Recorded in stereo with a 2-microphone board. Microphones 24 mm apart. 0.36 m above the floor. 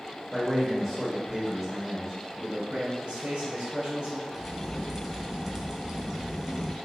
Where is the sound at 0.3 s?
5° right (ahead or behind), 1.3 m.